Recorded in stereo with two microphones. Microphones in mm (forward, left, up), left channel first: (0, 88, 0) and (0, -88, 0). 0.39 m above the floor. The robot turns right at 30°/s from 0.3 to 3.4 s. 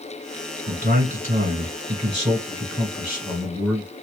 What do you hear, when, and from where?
0.7 s a man speaking: 85° right, 1.7 m; by 3.9 s 5° right, 1.7 m